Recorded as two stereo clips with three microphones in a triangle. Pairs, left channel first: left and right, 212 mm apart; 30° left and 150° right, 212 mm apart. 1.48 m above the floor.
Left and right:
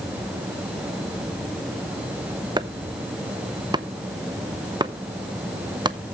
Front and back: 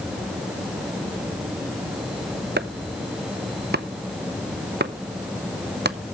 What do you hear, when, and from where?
2.6 s chopping: 155° right, 0.7 m